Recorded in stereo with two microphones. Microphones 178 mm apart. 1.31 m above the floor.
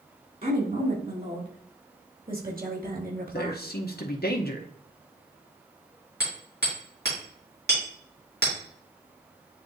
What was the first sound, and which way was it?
A woman speaking, 55° right (ahead or behind).